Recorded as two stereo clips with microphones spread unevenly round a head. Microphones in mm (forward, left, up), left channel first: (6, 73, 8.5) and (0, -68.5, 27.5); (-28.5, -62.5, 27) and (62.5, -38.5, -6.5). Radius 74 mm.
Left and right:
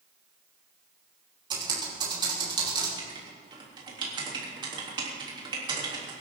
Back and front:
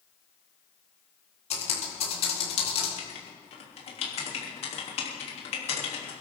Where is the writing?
155° right, 3.5 m.